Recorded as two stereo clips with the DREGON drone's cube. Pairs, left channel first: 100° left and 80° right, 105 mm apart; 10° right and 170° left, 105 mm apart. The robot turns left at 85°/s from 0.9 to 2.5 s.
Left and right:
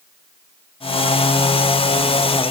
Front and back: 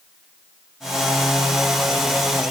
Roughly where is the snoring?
I don't hear snoring.